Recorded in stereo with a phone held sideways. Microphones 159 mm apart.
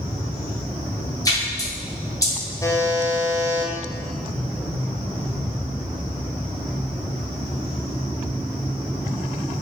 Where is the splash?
20° left (ahead or behind), 0.7 m.